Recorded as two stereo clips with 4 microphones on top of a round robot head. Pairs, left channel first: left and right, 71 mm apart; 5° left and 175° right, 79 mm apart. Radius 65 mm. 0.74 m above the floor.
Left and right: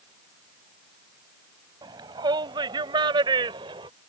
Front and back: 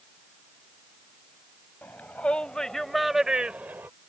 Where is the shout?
70° right; by 3.9 s 105° right.